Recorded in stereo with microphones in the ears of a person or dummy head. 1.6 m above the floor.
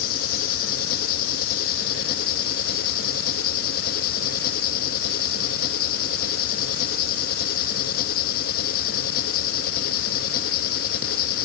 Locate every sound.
0.0 s an engine running: 55° left (ahead or behind)